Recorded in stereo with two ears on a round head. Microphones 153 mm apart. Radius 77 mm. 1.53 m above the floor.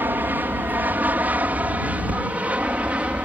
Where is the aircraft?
10° right (ahead or behind); by 3.3 s 5° right (ahead or behind).